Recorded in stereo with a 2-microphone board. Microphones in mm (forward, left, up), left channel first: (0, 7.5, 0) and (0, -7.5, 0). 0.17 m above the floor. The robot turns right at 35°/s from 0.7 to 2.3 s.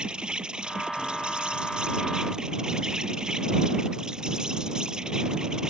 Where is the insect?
105° right; by 5.7 s 50° right.